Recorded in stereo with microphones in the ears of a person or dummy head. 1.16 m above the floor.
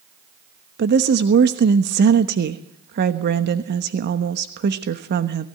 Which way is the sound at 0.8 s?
50° right (ahead or behind).